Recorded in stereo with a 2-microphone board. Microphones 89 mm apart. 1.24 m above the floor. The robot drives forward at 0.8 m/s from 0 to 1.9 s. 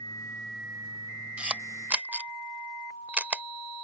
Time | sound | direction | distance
1.4 | a camera shutter | 15° right (ahead or behind) | ?